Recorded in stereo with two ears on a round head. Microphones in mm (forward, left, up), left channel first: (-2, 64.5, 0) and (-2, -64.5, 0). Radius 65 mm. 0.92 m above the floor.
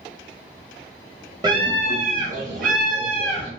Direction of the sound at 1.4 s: 30° right (ahead or behind).